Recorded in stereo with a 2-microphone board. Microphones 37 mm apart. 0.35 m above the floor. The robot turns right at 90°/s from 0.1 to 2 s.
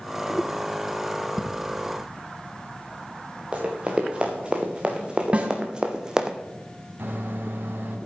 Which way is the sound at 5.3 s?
35° right (ahead or behind).